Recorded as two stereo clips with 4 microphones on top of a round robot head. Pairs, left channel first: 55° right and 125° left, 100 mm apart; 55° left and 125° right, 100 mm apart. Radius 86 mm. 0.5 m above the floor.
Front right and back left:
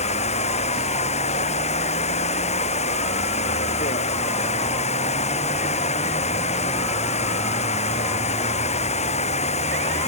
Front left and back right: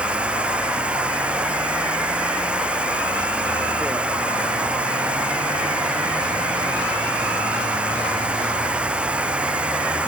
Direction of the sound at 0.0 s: 45° right.